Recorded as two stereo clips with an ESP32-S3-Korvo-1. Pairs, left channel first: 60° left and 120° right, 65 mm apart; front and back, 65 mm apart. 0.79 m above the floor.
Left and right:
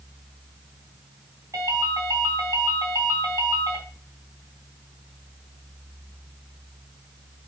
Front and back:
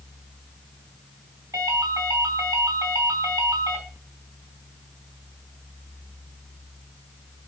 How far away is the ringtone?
About 4 m.